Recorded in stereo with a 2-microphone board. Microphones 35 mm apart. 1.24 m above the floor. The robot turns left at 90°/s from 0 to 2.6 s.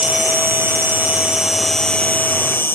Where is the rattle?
No rattle in this recording.